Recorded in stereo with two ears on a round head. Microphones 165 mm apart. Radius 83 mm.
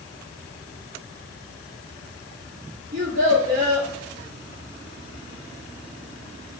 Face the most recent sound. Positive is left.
turn(degrees=-55)  # may be behind; listen again after turning